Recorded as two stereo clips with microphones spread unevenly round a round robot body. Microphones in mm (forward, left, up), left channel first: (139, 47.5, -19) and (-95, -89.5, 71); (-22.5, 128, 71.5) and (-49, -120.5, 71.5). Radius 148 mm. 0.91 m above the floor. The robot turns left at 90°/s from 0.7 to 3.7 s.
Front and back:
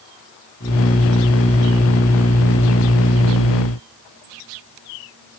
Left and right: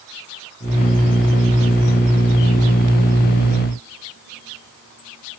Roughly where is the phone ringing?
No phone ringing in this recording.